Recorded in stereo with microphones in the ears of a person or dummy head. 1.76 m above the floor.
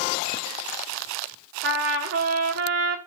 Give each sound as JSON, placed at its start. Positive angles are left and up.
{"t": 1.6, "sound": "a trumpet", "side_deg": -80, "distance_m": 1.6}